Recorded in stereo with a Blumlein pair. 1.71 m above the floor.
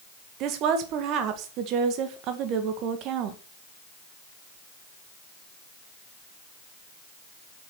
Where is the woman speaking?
35° right, 2.0 m.